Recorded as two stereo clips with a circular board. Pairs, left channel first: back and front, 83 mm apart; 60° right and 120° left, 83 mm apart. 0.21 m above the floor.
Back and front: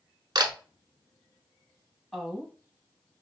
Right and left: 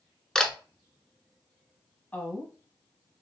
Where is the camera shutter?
25° left, 0.7 m.